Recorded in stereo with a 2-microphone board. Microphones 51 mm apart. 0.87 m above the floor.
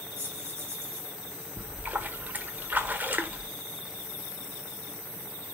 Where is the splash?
35° right (ahead or behind), 1.2 m.